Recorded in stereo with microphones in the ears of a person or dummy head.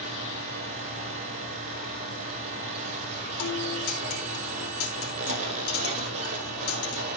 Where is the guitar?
70° left (ahead or behind), 4.5 m.